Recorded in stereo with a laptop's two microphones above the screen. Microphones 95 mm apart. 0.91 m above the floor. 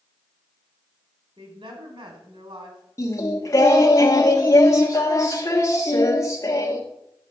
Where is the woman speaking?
65° right (ahead or behind), 3 m.